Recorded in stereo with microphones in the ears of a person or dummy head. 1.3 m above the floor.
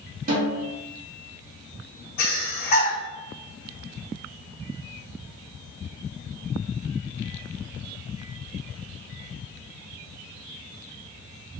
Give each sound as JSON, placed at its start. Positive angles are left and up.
{"t": 0.3, "sound": "a snare drum", "side_deg": -50, "distance_m": 2.0}
{"t": 2.2, "sound": "breathing", "side_deg": 50, "distance_m": 1.1}